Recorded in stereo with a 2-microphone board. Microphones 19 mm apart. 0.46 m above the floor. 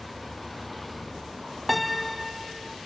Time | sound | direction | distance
0.0 | a vehicle | centre (ahead or behind) | ?
1.7 | a piano | 5° right (ahead or behind) | ?